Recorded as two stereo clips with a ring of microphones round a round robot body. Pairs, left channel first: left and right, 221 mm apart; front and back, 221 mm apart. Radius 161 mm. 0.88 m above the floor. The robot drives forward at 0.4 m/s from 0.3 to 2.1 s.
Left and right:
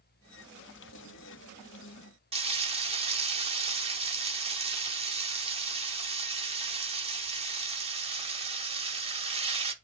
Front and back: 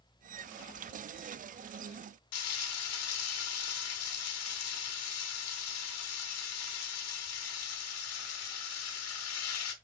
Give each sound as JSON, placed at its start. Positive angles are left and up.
{"t": 2.3, "sound": "frying", "azimuth_deg": -25, "distance_m": 1.5}